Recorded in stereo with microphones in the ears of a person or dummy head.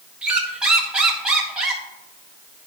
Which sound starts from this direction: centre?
A squeak, at 0.2 s.